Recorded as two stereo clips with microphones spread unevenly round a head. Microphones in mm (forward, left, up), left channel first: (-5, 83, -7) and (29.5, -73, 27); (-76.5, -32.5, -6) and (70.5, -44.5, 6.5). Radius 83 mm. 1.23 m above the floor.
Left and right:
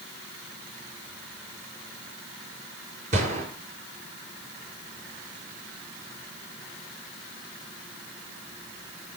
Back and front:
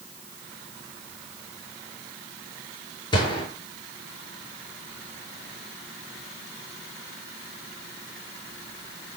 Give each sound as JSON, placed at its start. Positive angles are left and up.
{"t": 3.1, "sound": "a gunshot", "azimuth_deg": -125, "distance_m": 7.0}